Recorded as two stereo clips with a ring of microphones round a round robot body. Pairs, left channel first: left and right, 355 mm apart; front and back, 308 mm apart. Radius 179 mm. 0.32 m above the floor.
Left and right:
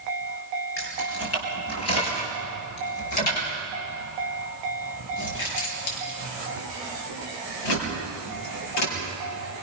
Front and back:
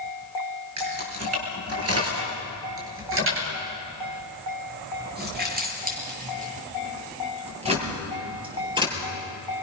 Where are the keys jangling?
145° left, 5.5 m; by 9.0 s 105° left, 6 m.